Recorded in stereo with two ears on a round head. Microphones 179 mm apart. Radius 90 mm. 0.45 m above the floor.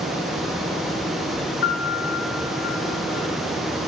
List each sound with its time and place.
1.6 s a piano: 50° left (ahead or behind), 5.5 m